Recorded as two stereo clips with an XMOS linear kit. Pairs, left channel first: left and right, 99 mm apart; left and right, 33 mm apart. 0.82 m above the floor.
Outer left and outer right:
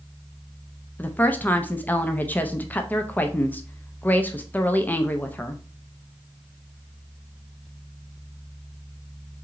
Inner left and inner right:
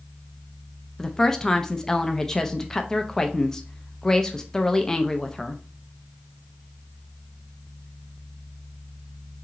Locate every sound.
1.0 s a woman speaking: 20° left (ahead or behind), 0.5 m